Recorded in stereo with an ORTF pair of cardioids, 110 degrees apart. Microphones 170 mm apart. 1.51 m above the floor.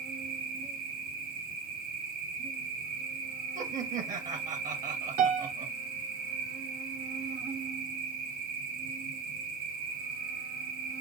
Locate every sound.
0.0 s an insect: 65° right, 1.2 m
3.5 s laughter: 50° right, 1.7 m
5.2 s a piano: 55° right, 1.3 m